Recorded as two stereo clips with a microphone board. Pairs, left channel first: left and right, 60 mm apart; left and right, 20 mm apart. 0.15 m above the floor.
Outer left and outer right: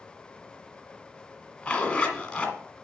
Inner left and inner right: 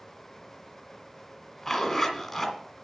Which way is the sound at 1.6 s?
15° left (ahead or behind).